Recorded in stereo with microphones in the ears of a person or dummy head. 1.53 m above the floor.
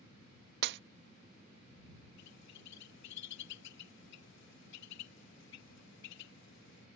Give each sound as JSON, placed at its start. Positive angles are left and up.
{"t": 0.6, "sound": "breaking glass", "side_deg": -60}
{"t": 2.2, "sound": "a bird", "side_deg": 65}